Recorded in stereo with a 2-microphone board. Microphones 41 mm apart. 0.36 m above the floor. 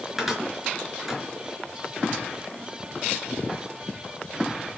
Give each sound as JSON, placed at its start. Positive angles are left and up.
{"t": 0.2, "sound": "a cupboard door", "side_deg": -5, "distance_m": 4.5}